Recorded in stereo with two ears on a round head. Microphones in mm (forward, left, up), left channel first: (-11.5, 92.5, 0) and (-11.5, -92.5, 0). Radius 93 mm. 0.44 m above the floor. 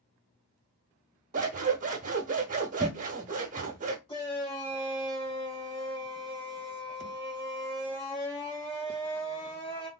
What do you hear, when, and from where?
1.3 s scissors: 35° right (ahead or behind), 0.8 m
4.1 s a shout: 25° left (ahead or behind), 1.3 m